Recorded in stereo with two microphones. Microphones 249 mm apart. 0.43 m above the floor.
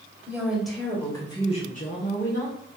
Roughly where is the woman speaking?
Centre.